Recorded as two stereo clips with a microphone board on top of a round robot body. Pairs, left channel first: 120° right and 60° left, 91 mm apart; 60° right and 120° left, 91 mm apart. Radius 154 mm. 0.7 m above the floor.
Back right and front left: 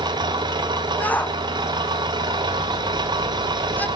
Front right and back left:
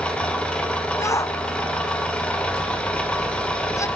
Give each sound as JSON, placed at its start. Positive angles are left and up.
{"t": 0.0, "sound": "an engine running", "azimuth_deg": 20, "distance_m": 2.5}
{"t": 1.0, "sound": "a shout", "azimuth_deg": -60, "distance_m": 1.0}